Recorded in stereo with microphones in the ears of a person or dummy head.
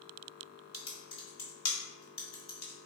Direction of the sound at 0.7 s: 35° left (ahead or behind).